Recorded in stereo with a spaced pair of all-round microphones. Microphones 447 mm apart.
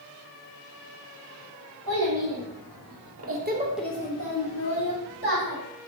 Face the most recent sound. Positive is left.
turn(degrees=60)  # may be behind; listen again after turning